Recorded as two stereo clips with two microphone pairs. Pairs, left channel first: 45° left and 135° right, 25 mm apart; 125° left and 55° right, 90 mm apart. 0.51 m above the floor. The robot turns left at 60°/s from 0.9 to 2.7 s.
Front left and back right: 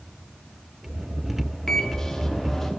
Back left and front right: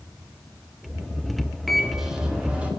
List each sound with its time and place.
1.7 s a microwave: 40° left, 0.8 m; by 2.7 s 20° right, 0.8 m